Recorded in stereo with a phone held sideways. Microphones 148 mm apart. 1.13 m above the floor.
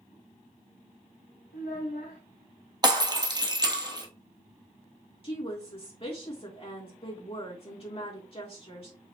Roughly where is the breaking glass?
Right.